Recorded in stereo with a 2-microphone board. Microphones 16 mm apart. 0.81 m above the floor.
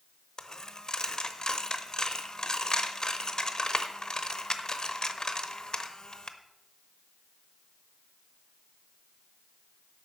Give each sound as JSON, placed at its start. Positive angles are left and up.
{"t": 0.4, "sound": "a dropped coin", "side_deg": 40, "distance_m": 0.8}